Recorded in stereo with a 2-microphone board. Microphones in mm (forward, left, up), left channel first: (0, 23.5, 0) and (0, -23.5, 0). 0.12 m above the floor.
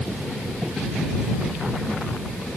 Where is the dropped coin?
I don't hear a dropped coin.